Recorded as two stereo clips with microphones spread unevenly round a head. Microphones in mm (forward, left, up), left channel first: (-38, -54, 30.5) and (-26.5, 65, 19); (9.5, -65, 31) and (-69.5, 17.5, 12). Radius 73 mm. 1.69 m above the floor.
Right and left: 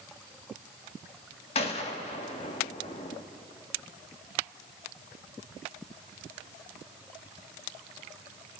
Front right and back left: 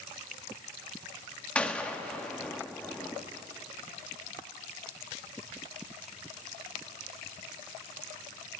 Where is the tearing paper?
No tearing paper in this recording.